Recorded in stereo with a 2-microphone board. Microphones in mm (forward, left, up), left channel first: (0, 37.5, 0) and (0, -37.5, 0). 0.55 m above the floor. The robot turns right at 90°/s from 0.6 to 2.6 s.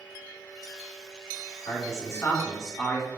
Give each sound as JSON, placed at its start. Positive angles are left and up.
{"t": 1.7, "sound": "a man speaking", "azimuth_deg": 90, "distance_m": 1.9}